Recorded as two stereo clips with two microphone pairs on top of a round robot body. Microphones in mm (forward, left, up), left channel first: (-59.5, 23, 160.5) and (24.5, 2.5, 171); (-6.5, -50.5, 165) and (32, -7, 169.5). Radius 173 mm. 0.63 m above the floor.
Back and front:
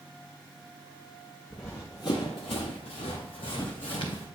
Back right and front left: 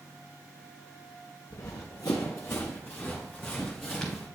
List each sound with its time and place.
1.5 s running footsteps: 100° right, 0.9 m; by 4.3 s 140° left, 2 m